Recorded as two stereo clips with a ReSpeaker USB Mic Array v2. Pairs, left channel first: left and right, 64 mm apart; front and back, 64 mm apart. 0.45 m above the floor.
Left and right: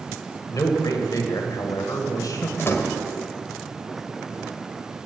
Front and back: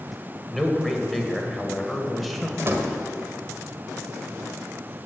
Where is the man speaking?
90° left, 1.8 m.